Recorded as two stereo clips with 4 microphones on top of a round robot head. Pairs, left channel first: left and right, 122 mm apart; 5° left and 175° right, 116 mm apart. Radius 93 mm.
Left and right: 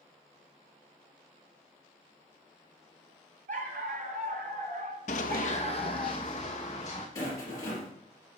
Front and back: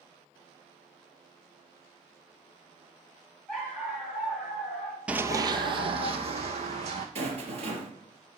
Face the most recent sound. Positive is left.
turn(degrees=160)